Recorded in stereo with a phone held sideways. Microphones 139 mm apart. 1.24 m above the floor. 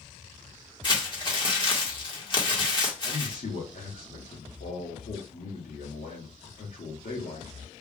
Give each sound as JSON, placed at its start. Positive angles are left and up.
{"t": 0.8, "sound": "crumpling", "side_deg": 35, "distance_m": 1.4}
{"t": 3.0, "sound": "a man speaking", "side_deg": 85, "distance_m": 1.5}